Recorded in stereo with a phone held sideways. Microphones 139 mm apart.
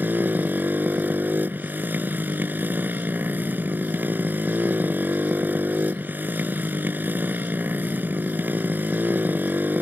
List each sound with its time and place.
0.0 s a motorcycle: 10° right (ahead or behind)